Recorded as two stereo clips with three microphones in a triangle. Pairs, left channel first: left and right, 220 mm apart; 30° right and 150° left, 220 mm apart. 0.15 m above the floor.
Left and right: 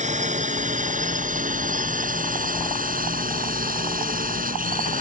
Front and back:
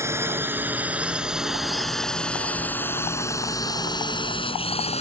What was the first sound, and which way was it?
A drone, 135° right.